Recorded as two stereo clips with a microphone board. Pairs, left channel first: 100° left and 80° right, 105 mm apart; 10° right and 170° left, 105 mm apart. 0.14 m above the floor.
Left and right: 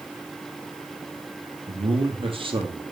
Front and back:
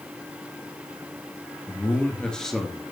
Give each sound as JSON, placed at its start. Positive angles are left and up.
{"t": 1.7, "sound": "a man speaking", "azimuth_deg": -80, "distance_m": 3.5}